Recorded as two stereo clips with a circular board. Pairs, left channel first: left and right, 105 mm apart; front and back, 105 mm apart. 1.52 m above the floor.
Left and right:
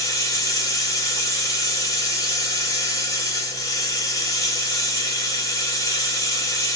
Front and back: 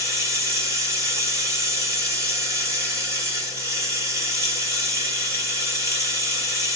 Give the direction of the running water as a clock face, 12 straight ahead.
8 o'clock.